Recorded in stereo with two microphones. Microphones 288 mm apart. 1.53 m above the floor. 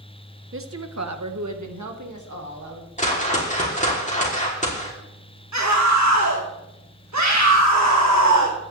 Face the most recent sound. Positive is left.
turn(degrees=-70)  # may be behind; listen again after turning